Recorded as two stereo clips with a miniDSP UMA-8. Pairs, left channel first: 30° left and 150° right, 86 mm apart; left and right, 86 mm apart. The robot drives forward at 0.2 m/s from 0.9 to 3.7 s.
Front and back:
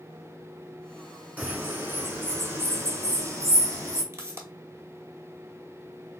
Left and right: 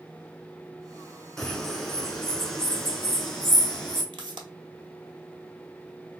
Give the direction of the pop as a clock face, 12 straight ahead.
3 o'clock.